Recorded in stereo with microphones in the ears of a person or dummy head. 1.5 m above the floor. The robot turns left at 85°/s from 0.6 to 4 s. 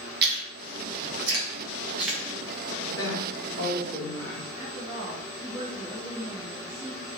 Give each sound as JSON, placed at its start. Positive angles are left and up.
{"t": 0.2, "sound": "chewing", "side_deg": -55, "distance_m": 1.2}
{"t": 2.9, "sound": "a woman speaking", "azimuth_deg": 110, "distance_m": 1.7}
{"t": 4.6, "sound": "a woman speaking", "side_deg": -25, "distance_m": 1.2}